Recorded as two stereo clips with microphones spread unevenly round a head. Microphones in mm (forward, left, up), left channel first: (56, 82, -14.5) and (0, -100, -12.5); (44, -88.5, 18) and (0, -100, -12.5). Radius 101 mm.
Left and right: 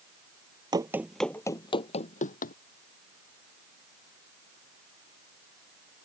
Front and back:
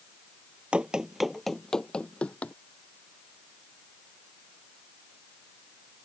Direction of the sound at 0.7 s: 55° right.